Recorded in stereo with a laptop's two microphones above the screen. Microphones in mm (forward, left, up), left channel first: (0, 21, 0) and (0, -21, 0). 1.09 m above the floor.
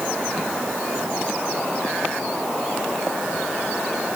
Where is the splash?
I don't hear a splash.